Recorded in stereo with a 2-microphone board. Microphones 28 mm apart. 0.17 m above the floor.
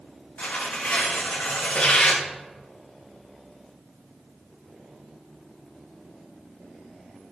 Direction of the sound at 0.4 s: 80° left.